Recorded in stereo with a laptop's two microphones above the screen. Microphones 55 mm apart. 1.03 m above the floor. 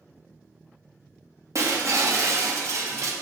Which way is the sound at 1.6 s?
60° right (ahead or behind).